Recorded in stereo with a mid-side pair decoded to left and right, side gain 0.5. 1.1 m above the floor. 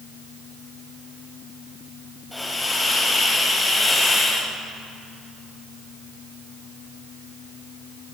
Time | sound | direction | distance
2.3 | a hiss | 10° left | 6.5 m